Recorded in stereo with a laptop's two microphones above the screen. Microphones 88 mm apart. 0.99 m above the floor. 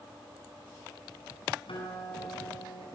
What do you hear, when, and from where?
1.7 s a guitar: 80° left, 9 m